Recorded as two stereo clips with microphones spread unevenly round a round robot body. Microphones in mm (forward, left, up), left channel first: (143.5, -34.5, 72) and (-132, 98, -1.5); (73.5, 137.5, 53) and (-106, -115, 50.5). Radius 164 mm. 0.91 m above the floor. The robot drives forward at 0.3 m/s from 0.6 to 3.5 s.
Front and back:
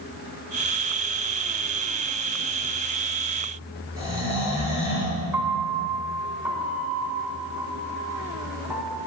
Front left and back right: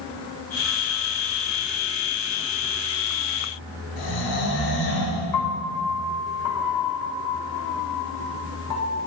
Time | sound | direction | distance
4.0 | snoring | 75° left | 6 m
5.3 | a piano | 70° left | 2.5 m